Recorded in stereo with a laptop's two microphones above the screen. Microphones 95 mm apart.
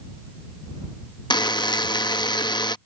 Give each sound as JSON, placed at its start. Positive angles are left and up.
{"t": 1.3, "sound": "a buzzer", "side_deg": 50}